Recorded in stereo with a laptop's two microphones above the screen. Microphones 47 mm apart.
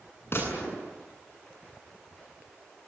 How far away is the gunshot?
About 8.5 m.